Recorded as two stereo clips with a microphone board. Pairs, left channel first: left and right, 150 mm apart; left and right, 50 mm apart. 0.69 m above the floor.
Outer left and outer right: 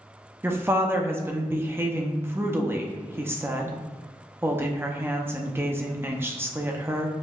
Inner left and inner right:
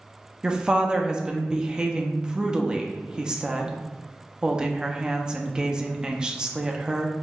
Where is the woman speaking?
15° right (ahead or behind), 0.5 m.